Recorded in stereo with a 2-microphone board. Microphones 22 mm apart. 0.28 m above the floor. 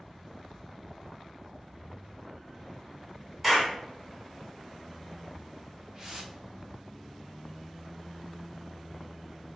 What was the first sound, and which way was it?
A clap, 5° right (ahead or behind).